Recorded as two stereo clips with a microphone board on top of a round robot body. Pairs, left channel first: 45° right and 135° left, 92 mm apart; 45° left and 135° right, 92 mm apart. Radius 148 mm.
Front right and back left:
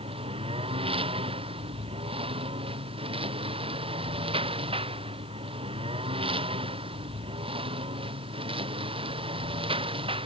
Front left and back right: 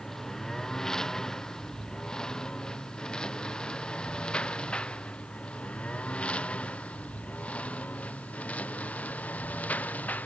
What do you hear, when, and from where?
0.0 s a lawn mower: 130° left; by 10.3 s 120° left